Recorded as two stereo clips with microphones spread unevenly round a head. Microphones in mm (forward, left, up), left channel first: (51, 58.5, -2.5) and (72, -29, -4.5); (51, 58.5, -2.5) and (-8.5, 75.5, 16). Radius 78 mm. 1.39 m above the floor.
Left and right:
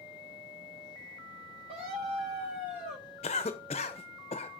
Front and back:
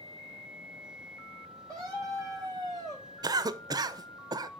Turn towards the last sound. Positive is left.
turn(degrees=145)